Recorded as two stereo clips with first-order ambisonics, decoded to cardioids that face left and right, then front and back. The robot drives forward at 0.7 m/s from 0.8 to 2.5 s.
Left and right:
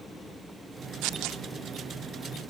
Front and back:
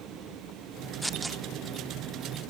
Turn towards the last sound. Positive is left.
turn(degrees=-140)